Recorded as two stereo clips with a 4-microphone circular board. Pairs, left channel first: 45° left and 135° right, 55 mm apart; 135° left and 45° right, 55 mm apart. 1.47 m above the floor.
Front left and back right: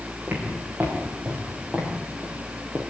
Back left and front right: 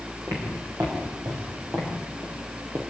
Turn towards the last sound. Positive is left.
turn(degrees=-60)